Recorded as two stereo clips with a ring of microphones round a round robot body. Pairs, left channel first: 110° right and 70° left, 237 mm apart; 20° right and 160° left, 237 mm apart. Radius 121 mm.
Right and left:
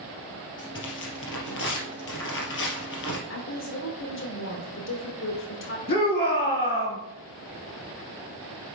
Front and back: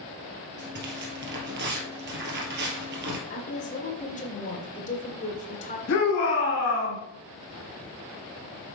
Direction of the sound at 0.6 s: 155° right.